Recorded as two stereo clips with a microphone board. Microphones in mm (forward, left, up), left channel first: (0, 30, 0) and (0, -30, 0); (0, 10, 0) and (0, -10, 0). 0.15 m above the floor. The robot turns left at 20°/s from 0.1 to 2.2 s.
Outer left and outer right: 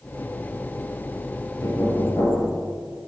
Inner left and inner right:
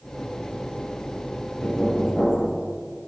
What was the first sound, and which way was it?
Knocking, 60° left (ahead or behind).